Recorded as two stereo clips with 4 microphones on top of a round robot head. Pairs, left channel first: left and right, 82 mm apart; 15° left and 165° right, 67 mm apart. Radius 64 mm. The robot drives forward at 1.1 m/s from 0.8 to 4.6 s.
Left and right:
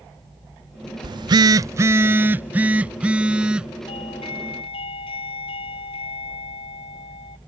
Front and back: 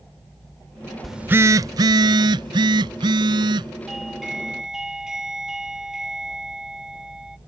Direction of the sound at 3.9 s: 105° left.